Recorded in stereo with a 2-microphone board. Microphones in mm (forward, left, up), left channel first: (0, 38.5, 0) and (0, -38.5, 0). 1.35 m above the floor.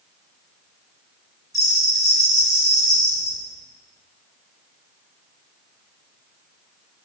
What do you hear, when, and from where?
1.5 s a bell: 50° left (ahead or behind), 4.5 m